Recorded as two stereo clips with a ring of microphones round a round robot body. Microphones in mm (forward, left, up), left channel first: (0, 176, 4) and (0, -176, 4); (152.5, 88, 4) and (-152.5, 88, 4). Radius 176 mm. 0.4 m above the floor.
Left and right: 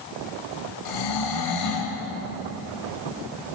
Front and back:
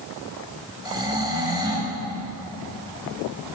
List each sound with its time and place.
0.8 s snoring: 105° left, 2.5 m